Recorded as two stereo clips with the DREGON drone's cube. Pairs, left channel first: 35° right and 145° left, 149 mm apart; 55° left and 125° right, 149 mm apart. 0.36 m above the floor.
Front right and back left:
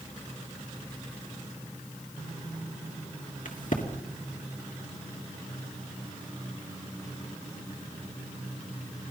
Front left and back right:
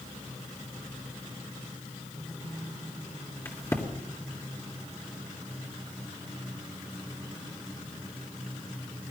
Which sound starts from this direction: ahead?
A crack, at 3.5 s.